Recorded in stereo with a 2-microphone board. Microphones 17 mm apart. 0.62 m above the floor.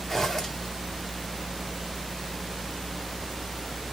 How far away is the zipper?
About 1.3 m.